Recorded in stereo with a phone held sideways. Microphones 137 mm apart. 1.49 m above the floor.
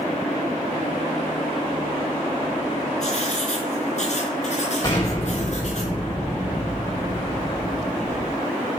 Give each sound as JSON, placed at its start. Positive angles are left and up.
{"t": 3.0, "sound": "writing", "side_deg": 55, "distance_m": 3.0}
{"t": 4.8, "sound": "an explosion", "side_deg": 30, "distance_m": 6.5}